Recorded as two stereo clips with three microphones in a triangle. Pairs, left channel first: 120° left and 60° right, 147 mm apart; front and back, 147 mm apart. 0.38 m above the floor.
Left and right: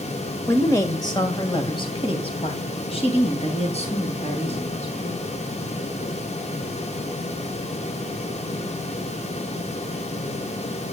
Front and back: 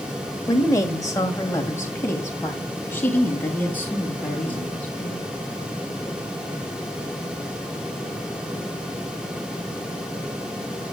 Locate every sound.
0.5 s a woman speaking: 55° left, 1.1 m; by 5.3 s 80° left, 3.5 m